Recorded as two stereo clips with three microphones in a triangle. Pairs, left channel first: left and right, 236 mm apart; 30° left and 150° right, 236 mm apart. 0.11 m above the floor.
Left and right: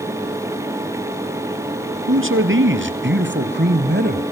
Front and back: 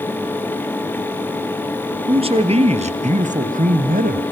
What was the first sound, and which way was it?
A man speaking, 85° right.